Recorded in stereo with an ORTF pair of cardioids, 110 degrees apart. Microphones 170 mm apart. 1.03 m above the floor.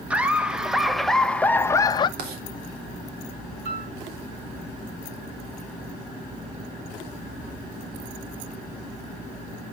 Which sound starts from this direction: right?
Writing, at 2.2 s.